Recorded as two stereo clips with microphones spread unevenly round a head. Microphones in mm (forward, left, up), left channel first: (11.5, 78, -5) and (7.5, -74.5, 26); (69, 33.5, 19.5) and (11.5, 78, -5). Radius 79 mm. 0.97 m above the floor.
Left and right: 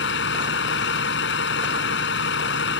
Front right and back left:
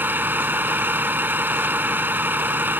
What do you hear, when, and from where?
0.0 s a vehicle: 75° left